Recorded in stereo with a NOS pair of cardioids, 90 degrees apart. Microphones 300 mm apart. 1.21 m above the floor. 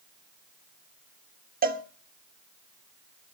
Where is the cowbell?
30° right, 1.4 m.